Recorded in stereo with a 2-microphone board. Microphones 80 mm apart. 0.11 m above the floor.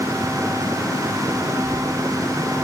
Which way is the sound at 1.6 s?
35° right (ahead or behind).